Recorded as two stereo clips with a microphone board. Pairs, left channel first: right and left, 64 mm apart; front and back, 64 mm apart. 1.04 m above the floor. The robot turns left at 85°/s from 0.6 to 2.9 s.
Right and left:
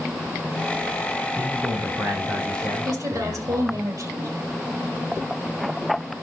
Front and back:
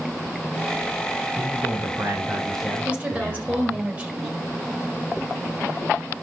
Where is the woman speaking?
115° left, 4.5 m; by 4.3 s 110° left, 4.5 m.